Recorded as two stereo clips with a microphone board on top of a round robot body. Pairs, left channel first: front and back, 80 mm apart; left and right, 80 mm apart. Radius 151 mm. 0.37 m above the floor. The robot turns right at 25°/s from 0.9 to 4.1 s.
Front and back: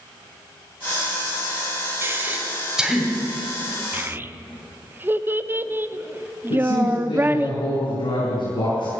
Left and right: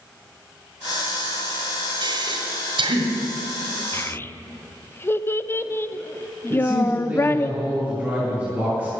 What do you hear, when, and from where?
2.0 s breathing: 115° right, 1.8 m; by 3.1 s 90° right, 1.8 m
3.9 s a child speaking: 130° left, 0.7 m; by 7.5 s 135° left, 0.7 m
6.5 s a man speaking: 20° right, 6 m